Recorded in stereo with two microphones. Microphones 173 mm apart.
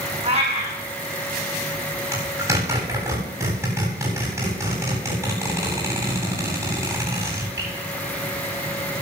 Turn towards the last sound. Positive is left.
turn(degrees=-15)  # may be behind; listen again after turning